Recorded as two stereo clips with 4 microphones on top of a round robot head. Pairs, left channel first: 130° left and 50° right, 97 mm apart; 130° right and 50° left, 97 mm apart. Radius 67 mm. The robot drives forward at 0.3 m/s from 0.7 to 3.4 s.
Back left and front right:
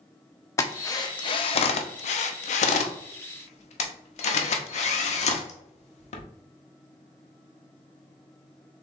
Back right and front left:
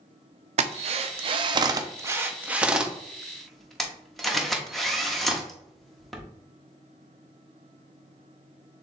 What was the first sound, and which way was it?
A drill, 70° left.